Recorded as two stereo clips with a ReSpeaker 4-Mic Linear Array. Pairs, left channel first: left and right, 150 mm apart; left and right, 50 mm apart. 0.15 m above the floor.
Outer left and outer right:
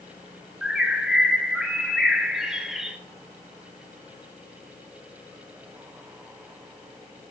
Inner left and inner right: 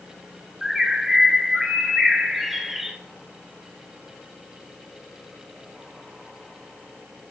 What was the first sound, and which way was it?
A bird, 5° right (ahead or behind).